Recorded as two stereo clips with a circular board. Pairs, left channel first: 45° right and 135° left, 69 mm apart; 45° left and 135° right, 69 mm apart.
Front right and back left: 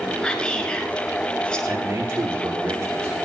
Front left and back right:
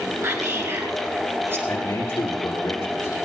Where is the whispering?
115° right, 1.6 m.